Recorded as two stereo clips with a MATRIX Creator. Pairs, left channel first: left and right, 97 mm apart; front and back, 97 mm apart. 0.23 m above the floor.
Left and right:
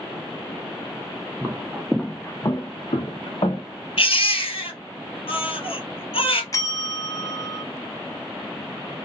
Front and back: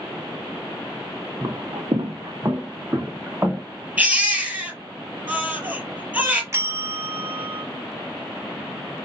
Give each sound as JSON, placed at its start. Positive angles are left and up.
{"t": 1.4, "sound": "footsteps", "azimuth_deg": -140, "distance_m": 0.6}
{"t": 4.0, "sound": "a baby crying", "azimuth_deg": 110, "distance_m": 1.7}
{"t": 6.5, "sound": "a bell", "azimuth_deg": 130, "distance_m": 0.5}